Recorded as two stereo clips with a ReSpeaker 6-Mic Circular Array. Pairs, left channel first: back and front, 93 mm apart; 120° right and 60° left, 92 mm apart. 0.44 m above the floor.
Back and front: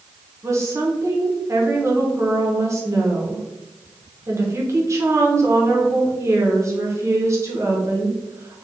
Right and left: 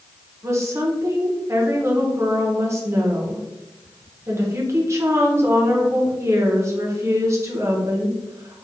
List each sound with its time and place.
0.4 s a woman speaking: 30° left, 0.8 m